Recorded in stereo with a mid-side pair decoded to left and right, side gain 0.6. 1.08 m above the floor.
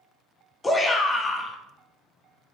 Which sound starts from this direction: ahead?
A shout, at 0.6 s.